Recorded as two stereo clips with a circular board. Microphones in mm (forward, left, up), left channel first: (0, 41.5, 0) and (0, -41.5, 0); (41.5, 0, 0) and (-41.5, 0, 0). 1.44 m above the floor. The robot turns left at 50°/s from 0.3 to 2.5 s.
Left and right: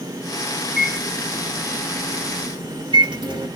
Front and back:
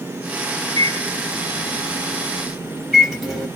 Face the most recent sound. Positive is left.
turn(degrees=-90)